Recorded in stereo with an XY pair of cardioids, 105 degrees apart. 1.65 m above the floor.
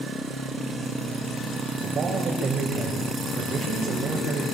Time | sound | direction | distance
1.8 | a man speaking | 45° right | 7 m